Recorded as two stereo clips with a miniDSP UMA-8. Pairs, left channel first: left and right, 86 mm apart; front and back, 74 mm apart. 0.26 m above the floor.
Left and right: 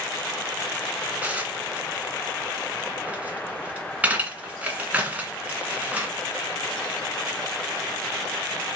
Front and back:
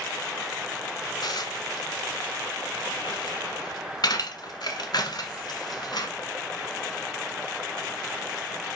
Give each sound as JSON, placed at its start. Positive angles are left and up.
{"t": 1.2, "sound": "dishes clattering", "azimuth_deg": -20, "distance_m": 1.5}